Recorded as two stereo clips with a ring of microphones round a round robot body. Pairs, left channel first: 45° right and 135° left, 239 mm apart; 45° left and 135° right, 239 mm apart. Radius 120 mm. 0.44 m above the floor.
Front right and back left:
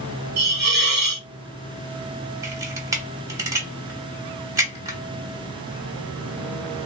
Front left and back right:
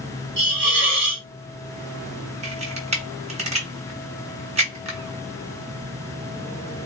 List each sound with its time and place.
0.4 s a hiss: 175° right, 1.0 m
2.4 s a camera shutter: 160° right, 0.9 m